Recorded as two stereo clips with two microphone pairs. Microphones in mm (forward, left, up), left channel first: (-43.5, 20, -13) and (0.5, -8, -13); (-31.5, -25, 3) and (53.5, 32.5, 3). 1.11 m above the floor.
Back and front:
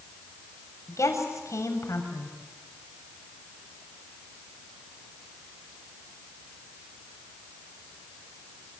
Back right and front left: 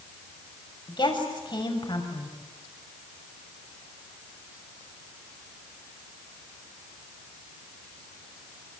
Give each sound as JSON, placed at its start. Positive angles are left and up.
{"t": 0.9, "sound": "a woman speaking", "azimuth_deg": 170, "distance_m": 6.5}